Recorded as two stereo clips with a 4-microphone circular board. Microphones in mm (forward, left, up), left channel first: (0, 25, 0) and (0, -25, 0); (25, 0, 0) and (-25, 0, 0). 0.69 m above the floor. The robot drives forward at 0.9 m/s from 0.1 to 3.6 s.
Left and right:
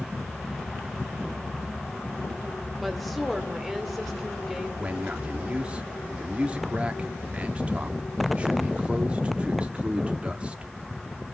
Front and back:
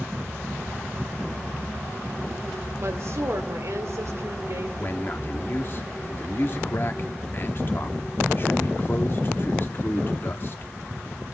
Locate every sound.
2.8 s a woman speaking: straight behind, 1.9 m
4.8 s a man speaking: 30° right, 1.5 m